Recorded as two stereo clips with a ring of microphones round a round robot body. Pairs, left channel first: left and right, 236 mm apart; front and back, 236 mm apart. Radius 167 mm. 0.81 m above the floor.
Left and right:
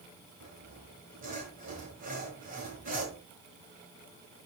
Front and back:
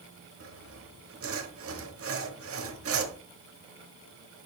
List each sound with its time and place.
0.4 s sawing: 155° right, 1.3 m